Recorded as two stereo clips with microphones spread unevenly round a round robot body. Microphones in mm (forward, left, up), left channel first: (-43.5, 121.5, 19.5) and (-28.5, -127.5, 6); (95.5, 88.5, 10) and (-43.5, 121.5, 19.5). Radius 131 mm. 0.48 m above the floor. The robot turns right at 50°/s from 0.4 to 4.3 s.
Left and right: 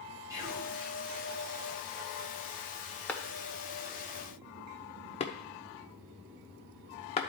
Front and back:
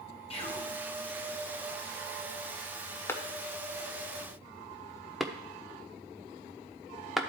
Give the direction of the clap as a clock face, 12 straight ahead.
12 o'clock.